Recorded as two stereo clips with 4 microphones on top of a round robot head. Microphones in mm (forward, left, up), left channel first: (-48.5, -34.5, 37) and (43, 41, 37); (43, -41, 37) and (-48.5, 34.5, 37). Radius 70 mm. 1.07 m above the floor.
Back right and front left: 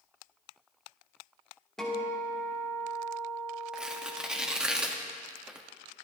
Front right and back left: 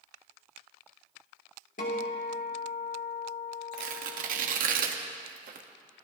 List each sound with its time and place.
1.8 s a guitar: 55° right, 3 m
3.7 s tearing paper: 125° left, 1.3 m